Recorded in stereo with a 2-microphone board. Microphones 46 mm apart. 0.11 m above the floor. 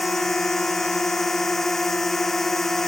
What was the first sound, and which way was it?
A drone, 10° left (ahead or behind).